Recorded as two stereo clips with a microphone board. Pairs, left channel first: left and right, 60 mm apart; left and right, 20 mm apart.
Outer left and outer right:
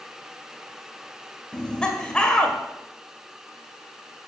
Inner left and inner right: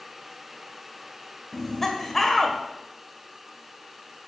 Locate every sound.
1.5 s laughter: 15° left (ahead or behind), 1.5 m